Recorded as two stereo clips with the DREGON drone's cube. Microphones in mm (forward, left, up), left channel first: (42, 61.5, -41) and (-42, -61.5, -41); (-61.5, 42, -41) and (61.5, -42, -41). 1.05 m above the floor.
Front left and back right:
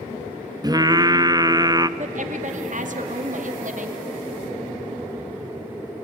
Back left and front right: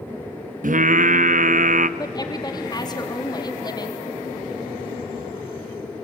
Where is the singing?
60° right, 0.6 m.